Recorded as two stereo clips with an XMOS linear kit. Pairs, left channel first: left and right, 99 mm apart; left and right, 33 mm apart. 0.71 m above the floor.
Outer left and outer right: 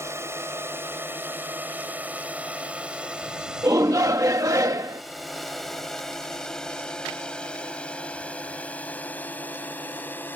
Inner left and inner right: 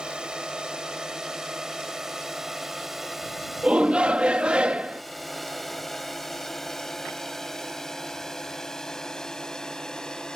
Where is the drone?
25° right (ahead or behind); by 10.4 s 20° left (ahead or behind).